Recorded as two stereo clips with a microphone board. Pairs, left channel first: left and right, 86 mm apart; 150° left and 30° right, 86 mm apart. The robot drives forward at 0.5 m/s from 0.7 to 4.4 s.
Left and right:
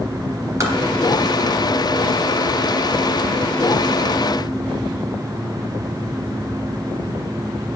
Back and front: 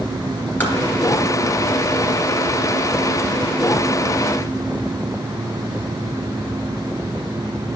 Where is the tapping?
140° right, 3 m; by 0.8 s 145° right, 3 m.